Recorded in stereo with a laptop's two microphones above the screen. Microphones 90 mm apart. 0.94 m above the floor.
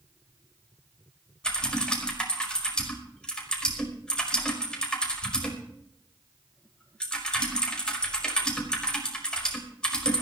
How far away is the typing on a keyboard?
About 5 m.